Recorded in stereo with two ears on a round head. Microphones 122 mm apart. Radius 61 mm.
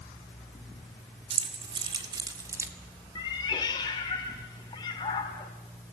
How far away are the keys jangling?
About 3 m.